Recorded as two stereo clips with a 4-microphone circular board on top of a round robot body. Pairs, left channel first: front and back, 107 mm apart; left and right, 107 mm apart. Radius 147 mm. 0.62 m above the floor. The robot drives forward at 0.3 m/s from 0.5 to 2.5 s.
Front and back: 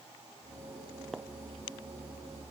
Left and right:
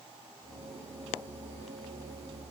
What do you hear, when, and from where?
Only background noise.